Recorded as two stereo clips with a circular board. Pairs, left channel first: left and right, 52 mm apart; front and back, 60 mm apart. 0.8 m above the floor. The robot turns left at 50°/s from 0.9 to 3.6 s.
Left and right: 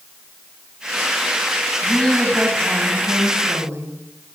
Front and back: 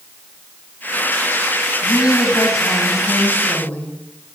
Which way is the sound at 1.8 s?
25° left.